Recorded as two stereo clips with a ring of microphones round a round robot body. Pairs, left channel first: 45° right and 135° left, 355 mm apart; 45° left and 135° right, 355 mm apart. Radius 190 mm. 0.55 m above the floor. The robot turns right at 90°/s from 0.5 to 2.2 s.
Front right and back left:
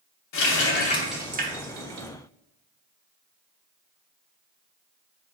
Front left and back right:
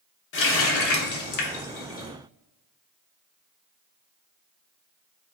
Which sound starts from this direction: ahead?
A running tap, at 0.3 s.